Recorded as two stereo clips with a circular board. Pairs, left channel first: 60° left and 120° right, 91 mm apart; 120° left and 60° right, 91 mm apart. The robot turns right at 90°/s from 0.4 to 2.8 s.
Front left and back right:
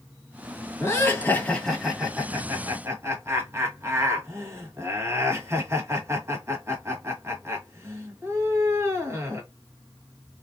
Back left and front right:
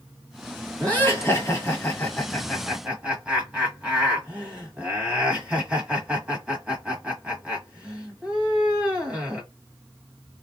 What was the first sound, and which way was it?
Laughter, 60° left.